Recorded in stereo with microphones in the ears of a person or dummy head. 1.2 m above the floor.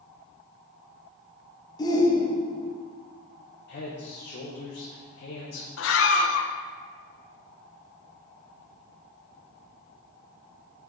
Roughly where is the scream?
Left.